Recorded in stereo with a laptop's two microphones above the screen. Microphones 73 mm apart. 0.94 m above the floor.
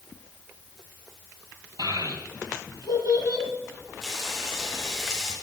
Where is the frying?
5° left (ahead or behind), 4 m.